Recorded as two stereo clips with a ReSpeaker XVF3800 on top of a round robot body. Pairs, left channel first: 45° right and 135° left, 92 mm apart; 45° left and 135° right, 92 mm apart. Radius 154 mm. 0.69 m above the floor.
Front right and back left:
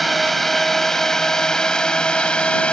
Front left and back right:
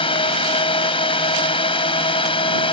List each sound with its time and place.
0.0 s a drone: 45° left; by 2.7 s 35° left